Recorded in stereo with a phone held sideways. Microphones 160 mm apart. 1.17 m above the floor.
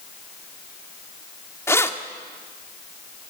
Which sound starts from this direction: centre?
Keys jangling, at 1.7 s.